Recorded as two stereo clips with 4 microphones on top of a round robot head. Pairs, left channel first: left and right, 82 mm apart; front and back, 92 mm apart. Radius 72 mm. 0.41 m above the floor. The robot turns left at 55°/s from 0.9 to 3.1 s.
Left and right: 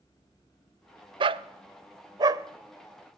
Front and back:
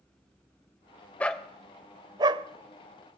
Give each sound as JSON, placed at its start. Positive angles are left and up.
{"t": 1.2, "sound": "a dog barking", "azimuth_deg": -75, "distance_m": 0.6}